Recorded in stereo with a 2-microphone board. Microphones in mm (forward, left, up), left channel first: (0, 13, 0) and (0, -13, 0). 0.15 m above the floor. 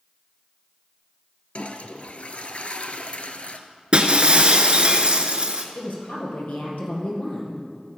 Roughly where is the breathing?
I don't hear breathing.